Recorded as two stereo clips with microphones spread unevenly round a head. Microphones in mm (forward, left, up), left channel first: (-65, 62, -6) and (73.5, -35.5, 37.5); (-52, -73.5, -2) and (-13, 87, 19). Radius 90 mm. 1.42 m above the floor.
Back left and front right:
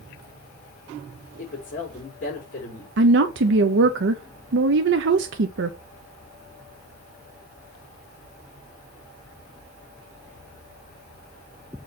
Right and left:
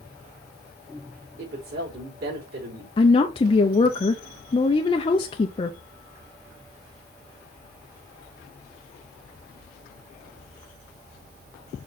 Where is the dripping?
No dripping in this recording.